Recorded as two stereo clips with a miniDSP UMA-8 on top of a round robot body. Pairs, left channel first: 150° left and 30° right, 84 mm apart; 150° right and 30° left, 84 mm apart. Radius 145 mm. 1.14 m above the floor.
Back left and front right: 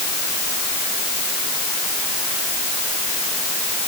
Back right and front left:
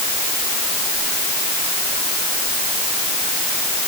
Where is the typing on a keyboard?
No typing on a keyboard in this recording.